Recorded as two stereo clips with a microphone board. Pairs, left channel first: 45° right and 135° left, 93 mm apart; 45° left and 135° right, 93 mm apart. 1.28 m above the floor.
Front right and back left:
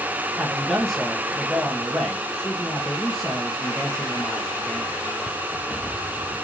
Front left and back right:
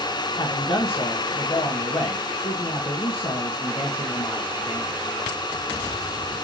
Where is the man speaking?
45° left, 1.4 m.